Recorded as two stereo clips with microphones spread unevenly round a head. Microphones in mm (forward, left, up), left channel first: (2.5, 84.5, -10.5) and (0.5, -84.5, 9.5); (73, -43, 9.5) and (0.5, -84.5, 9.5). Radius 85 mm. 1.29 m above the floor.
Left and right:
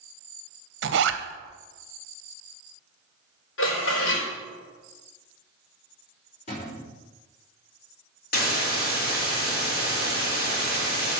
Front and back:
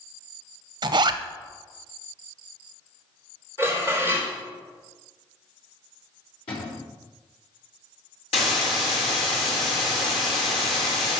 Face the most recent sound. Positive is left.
turn(degrees=50)